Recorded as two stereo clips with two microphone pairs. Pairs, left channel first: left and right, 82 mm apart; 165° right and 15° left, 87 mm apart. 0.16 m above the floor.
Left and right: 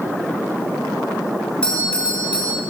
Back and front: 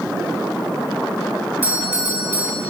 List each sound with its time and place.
1.6 s a doorbell: 35° left, 2.5 m